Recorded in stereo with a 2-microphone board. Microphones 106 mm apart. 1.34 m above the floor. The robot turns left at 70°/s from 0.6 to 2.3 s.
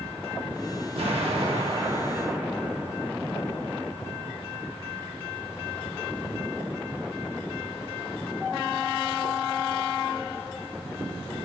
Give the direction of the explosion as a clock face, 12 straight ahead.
2 o'clock.